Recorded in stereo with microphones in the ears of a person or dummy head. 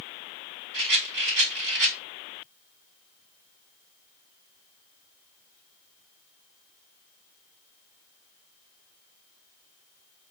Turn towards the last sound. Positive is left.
turn(degrees=-65)  # may be behind; listen again after turning